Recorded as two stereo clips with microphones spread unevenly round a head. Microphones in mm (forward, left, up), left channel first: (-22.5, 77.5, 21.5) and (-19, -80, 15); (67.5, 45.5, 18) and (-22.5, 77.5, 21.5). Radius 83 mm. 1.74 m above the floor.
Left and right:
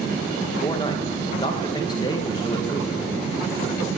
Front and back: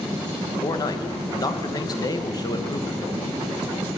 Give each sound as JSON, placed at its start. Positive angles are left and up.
{"t": 0.6, "sound": "a man speaking", "azimuth_deg": 30, "distance_m": 1.4}